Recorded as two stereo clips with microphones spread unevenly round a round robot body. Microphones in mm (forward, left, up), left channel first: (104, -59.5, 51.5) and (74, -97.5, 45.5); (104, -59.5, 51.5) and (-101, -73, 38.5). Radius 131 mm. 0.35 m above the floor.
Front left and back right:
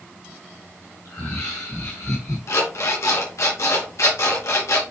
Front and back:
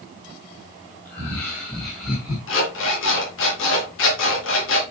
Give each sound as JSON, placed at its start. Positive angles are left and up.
{"t": 1.1, "sound": "laughter", "azimuth_deg": 75, "distance_m": 3.5}
{"t": 2.5, "sound": "an alarm clock", "azimuth_deg": 40, "distance_m": 3.5}